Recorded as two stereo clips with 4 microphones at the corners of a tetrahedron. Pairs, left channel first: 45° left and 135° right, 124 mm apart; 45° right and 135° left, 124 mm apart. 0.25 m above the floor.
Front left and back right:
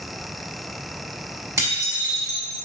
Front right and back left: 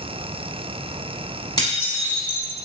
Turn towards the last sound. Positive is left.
turn(degrees=-80)